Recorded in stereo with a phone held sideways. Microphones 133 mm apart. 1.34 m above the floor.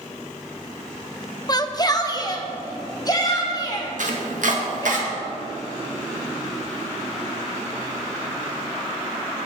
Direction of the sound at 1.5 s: 30° left (ahead or behind).